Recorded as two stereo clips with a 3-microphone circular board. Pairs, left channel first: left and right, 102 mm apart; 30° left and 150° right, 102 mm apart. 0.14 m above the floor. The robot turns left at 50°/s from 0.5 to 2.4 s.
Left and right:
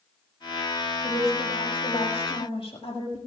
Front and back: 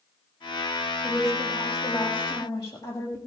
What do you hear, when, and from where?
1.0 s a woman speaking: 130° left, 5.5 m; by 3.2 s 65° left, 5.5 m